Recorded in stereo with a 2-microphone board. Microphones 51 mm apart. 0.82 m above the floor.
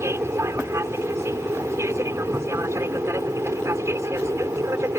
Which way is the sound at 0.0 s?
60° right (ahead or behind).